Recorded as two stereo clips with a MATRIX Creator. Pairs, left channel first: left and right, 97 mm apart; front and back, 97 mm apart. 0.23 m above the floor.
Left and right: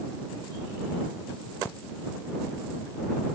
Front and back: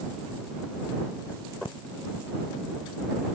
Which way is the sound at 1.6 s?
20° left.